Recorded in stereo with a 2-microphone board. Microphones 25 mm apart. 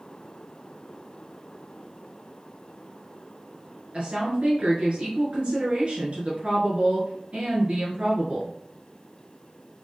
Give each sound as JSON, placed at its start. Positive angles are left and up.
{"t": 3.9, "sound": "a woman speaking", "side_deg": -50, "distance_m": 1.6}